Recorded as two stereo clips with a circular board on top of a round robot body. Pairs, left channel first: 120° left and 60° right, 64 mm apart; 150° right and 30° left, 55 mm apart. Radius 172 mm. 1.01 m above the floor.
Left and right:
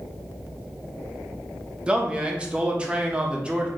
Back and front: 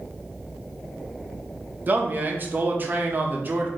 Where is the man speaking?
5° left, 0.9 m.